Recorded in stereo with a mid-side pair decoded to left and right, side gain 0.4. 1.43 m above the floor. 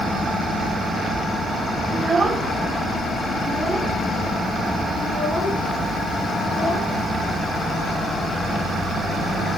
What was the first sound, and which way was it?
A child speaking, 35° right.